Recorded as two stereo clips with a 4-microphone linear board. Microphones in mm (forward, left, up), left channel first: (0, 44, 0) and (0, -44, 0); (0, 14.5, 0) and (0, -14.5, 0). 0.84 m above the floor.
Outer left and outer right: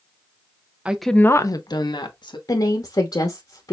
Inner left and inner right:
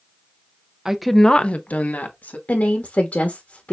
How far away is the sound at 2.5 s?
About 1.0 m.